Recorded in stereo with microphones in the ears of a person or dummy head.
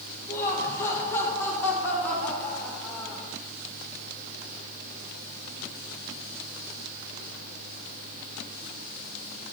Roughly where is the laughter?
Centre.